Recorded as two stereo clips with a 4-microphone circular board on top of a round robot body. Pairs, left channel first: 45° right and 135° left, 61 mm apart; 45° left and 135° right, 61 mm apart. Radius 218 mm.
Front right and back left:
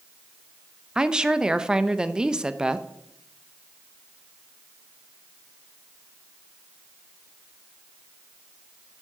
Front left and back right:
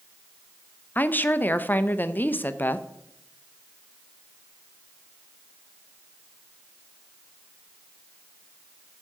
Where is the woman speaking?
70° left, 0.9 m.